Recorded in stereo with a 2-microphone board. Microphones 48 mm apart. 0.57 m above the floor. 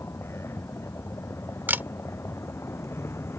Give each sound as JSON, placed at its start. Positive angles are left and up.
{"t": 0.0, "sound": "a vehicle", "side_deg": 65}
{"t": 1.7, "sound": "a camera shutter", "side_deg": -45}